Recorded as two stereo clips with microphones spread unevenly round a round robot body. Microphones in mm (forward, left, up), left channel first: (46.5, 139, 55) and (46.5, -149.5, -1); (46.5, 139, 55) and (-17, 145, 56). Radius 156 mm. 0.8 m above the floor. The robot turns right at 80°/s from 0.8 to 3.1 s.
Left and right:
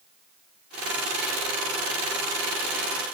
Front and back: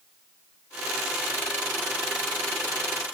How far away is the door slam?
No door slam in this recording.